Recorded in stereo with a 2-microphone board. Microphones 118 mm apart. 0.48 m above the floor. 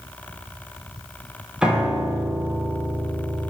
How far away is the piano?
About 2.5 m.